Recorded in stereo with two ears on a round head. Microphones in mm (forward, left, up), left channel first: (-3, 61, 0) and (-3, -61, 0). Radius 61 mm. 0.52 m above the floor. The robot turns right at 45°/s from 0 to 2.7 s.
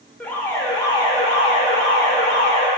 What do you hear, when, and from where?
0.2 s an alarm: 10° left, 1.4 m; by 2.7 s 120° left, 1.4 m